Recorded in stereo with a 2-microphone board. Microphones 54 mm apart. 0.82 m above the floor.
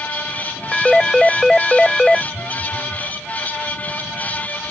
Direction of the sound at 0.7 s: 5° left (ahead or behind).